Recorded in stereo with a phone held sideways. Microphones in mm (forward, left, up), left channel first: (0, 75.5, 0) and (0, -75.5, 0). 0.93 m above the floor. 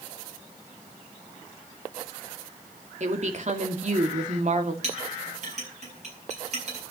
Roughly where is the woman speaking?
Right.